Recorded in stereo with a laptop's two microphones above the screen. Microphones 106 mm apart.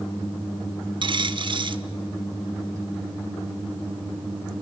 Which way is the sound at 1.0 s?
50° right (ahead or behind).